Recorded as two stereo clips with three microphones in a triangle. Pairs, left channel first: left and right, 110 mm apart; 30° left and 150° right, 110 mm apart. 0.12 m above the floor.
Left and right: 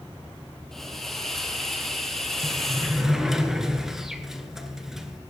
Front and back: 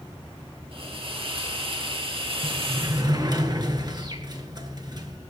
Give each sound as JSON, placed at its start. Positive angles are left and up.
{"t": 0.7, "sound": "a hiss", "azimuth_deg": 175, "distance_m": 2.0}
{"t": 2.4, "sound": "a sliding door", "azimuth_deg": -175, "distance_m": 1.4}